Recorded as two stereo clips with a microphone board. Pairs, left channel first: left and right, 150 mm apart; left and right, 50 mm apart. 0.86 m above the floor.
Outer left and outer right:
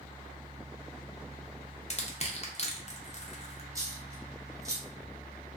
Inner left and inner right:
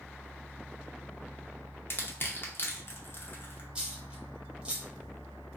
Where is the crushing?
45° left (ahead or behind), 0.5 m.